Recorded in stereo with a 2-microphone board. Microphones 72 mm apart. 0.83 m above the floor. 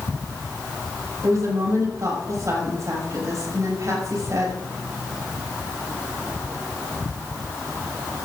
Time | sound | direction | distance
1.2 | a woman speaking | 50° right (ahead or behind) | 6.5 m